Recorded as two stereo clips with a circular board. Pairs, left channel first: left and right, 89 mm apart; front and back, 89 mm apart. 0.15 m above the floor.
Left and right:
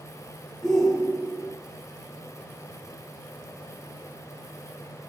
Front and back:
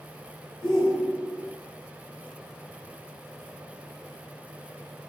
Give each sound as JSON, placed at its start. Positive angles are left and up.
{"t": 0.6, "sound": "a shout", "azimuth_deg": 5, "distance_m": 4.0}